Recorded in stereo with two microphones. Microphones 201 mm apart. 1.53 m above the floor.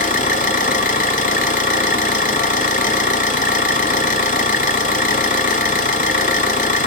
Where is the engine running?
40° left (ahead or behind), 0.8 m.